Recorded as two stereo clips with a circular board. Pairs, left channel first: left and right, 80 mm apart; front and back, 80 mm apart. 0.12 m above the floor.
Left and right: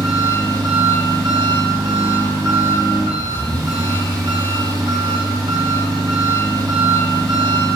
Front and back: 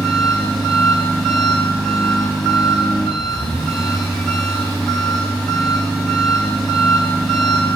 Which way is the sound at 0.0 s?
85° right.